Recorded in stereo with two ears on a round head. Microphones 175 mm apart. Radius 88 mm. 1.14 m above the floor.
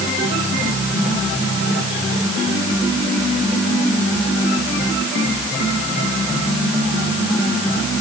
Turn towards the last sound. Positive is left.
No sound to turn to.